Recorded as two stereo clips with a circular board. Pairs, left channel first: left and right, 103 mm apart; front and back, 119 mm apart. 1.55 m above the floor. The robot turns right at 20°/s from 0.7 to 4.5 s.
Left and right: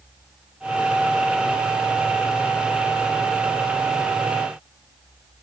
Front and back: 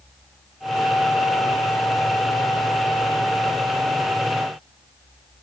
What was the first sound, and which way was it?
Only background noise.